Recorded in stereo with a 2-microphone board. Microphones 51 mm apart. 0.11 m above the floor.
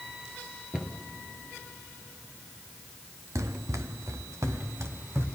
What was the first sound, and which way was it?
A cupboard door, 15° right (ahead or behind).